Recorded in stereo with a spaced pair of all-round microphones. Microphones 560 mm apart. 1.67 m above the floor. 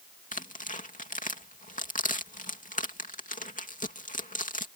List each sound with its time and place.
0.3 s tearing paper: 15° left (ahead or behind)